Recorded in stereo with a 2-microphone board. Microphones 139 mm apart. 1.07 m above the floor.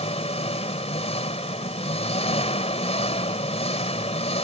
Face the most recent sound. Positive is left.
turn(degrees=50)  # may be behind; listen again after turning